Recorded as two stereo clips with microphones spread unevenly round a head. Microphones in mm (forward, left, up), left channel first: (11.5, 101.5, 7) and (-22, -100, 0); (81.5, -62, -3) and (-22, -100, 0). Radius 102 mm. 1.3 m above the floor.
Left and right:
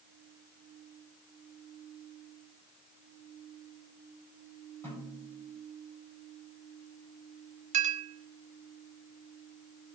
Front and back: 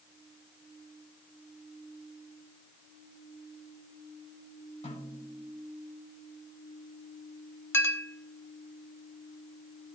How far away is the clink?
About 1.1 m.